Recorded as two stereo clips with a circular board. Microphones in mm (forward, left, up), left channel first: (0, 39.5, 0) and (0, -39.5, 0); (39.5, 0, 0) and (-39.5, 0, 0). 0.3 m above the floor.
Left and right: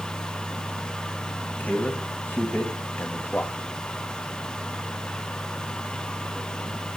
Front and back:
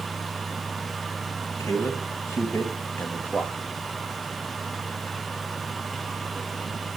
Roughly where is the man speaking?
Ahead left.